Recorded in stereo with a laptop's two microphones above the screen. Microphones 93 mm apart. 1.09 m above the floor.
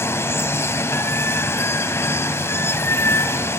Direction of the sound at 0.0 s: 30° left (ahead or behind).